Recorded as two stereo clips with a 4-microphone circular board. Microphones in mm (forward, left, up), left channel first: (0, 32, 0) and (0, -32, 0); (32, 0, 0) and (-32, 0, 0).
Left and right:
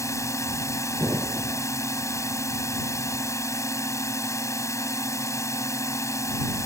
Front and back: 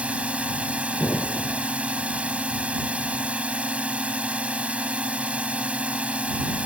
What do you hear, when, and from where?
0.0 s a drone: 110° left
1.0 s an explosion: 60° right